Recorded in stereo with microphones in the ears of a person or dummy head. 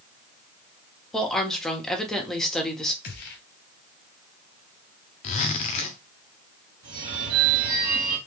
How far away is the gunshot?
About 0.9 m.